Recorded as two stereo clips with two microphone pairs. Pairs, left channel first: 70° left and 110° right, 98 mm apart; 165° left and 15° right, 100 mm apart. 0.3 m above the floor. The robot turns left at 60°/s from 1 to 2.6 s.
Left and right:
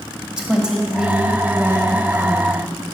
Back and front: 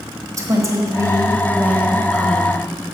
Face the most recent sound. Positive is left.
turn(degrees=-130)